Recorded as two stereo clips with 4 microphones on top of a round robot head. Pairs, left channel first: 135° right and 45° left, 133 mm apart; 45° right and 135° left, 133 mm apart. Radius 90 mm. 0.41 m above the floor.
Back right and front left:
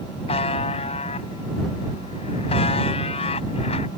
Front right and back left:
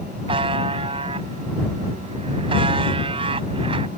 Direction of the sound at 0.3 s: Straight behind.